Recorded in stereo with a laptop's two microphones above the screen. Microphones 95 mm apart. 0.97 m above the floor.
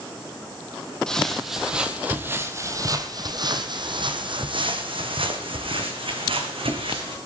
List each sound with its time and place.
1.1 s footsteps: 10° left (ahead or behind), 1.3 m; by 7.2 s 70° right (ahead or behind), 3 m